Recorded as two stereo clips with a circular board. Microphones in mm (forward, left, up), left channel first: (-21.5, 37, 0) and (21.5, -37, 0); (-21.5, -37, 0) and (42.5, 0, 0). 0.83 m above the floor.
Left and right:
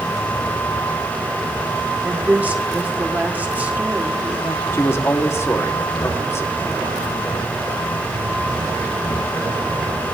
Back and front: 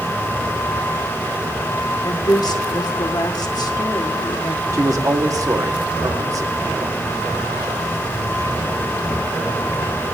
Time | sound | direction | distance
2.0 | a woman speaking | 130° right | 1.6 m
4.7 | a man speaking | 60° left | 1.5 m